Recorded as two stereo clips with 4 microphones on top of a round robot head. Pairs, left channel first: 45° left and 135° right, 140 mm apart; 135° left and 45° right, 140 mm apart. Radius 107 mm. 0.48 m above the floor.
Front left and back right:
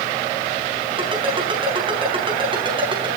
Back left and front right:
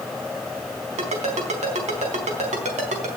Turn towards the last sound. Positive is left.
turn(degrees=-80)